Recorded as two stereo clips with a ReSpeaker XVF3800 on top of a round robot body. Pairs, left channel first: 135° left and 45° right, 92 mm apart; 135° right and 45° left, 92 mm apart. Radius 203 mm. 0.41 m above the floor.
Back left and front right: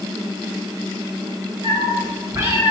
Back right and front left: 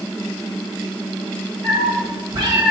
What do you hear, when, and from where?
1.6 s a cat meowing: 5° left, 2.5 m; by 2.7 s 15° left, 3 m